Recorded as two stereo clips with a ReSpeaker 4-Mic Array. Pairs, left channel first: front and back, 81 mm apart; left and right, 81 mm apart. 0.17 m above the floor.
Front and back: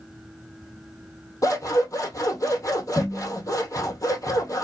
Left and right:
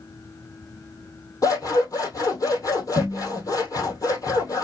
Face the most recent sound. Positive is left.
turn(degrees=45)